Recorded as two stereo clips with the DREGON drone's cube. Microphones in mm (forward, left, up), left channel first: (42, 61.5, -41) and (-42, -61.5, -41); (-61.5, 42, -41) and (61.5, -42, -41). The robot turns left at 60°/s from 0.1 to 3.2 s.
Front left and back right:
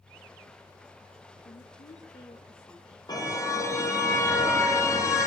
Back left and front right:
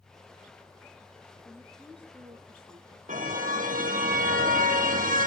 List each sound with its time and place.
1.4 s a woman speaking: 75° left, 2 m; by 3.0 s 20° right, 2 m
3.1 s a car horn: 5° right, 3 m; by 5.3 s 15° right, 3 m